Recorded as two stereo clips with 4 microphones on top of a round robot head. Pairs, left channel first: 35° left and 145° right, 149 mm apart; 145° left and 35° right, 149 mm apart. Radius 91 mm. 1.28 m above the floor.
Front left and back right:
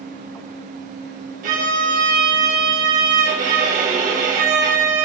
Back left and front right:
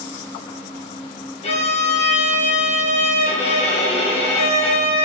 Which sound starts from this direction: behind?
A violin, at 1.4 s.